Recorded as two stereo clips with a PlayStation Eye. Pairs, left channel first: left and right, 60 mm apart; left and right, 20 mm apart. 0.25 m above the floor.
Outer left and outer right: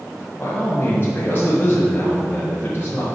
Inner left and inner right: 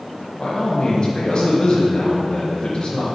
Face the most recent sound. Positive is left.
turn(degrees=35)  # may be behind; listen again after turning